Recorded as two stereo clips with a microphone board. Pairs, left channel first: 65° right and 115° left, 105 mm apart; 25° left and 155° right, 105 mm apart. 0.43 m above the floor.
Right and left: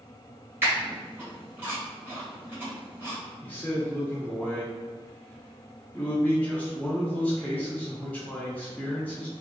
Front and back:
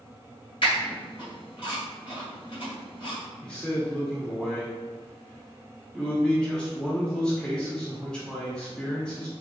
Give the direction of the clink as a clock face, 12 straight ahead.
I don't hear a clink.